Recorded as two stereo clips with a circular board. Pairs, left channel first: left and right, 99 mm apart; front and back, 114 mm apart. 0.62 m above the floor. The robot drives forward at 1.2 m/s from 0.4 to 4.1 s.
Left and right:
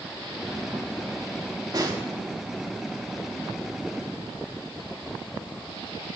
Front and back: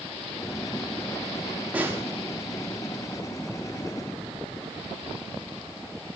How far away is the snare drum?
About 1.4 m.